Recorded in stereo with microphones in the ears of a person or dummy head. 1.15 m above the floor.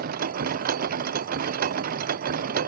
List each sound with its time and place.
0.0 s a machine running: 55° right (ahead or behind)